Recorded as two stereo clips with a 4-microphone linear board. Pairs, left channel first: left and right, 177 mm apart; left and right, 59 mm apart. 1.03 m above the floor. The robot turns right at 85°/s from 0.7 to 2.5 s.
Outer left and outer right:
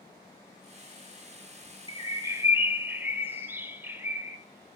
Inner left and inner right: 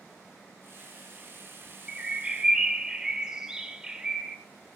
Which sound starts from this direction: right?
A bird, at 1.9 s.